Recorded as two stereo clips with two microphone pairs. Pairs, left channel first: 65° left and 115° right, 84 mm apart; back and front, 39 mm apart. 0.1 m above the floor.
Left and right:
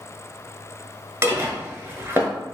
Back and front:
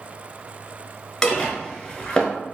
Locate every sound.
1.2 s dishes clattering: 125° right, 1.0 m